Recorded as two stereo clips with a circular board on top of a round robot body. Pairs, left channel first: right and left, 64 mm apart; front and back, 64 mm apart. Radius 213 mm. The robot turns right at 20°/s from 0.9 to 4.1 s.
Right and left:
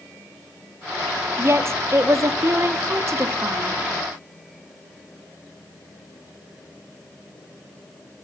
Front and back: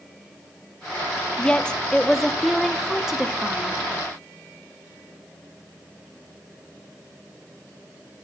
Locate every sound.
1.4 s a woman speaking: 70° left, 1.1 m; by 3.8 s 115° left, 1.1 m